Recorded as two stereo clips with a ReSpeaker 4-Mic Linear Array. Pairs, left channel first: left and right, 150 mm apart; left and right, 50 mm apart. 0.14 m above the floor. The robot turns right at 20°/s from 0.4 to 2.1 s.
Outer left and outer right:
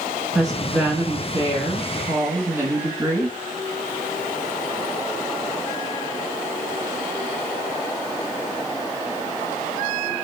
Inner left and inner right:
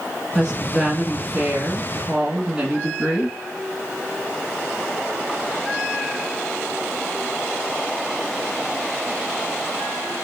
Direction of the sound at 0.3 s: 5° right (ahead or behind).